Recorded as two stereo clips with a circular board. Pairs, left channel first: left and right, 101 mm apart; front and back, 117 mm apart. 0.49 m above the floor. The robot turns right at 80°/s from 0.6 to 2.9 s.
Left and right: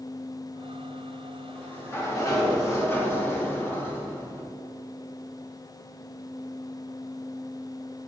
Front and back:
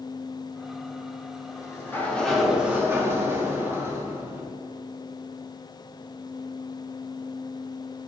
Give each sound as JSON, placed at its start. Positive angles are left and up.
{"t": 1.4, "sound": "a sliding door", "azimuth_deg": 15, "distance_m": 1.0}